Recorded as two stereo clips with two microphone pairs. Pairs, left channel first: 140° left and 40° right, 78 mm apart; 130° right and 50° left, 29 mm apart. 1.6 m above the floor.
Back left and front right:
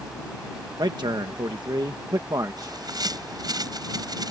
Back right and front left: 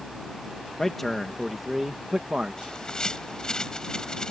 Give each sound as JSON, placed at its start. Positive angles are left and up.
{"t": 0.8, "sound": "a man speaking", "azimuth_deg": -55}
{"t": 2.6, "sound": "a bird", "azimuth_deg": -70}